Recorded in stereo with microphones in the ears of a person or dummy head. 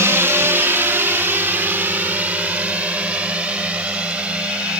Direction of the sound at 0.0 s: 10° right (ahead or behind).